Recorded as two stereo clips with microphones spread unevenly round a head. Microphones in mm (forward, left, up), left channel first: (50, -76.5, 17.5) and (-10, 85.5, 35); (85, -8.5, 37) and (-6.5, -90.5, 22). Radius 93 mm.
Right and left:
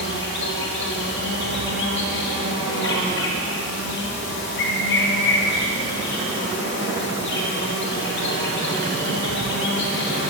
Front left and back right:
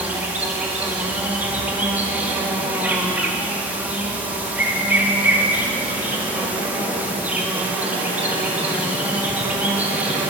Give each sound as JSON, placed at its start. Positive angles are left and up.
{"t": 0.0, "sound": "an insect", "azimuth_deg": -60, "distance_m": 4.0}